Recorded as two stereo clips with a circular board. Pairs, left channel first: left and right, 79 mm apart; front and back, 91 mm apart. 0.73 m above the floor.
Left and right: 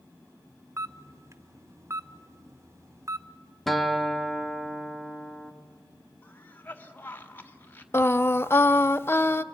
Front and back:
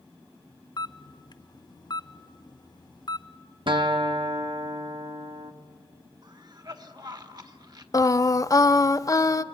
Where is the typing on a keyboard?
I don't hear typing on a keyboard.